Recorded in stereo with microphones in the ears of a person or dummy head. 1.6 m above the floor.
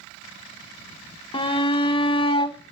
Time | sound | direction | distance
1.3 | a shout | 30° left (ahead or behind) | 0.9 m